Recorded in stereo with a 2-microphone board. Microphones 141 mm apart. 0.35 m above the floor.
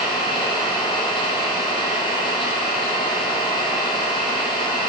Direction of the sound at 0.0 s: 35° left (ahead or behind).